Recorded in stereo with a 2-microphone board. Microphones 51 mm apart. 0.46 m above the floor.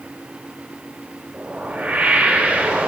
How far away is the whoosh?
About 1.7 m.